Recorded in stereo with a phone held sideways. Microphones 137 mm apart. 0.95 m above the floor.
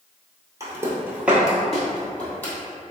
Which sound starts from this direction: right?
Footsteps, at 0.6 s.